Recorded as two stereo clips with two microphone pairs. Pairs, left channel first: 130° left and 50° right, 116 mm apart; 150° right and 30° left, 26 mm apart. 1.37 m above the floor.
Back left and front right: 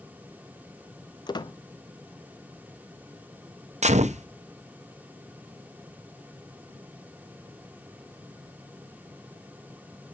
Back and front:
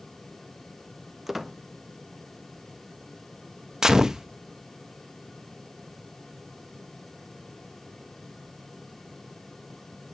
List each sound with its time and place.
1.3 s a squeak: 105° left, 0.5 m
3.8 s a gunshot: 40° right, 0.7 m